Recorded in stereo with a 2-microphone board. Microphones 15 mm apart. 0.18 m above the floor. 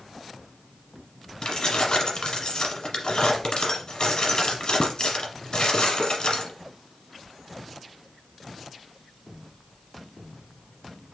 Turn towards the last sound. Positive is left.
turn(degrees=55)  # may be behind; listen again after turning